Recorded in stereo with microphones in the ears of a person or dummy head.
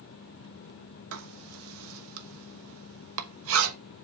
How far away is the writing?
About 1.0 m.